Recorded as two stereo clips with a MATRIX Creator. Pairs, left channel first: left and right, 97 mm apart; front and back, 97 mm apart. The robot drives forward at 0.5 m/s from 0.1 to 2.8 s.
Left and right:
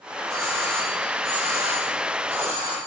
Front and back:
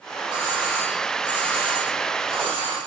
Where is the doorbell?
145° right, 4.5 m; by 2.8 s 155° right, 5.5 m.